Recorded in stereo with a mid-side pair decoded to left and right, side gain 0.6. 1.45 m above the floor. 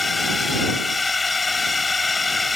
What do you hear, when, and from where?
0.0 s a drone: 20° left